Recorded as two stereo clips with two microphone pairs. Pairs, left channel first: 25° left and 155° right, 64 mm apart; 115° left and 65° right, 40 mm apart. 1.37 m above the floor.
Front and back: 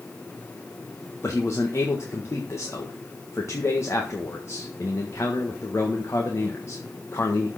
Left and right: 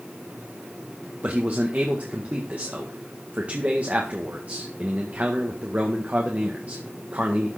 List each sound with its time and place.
1.2 s a man speaking: 15° right, 1.7 m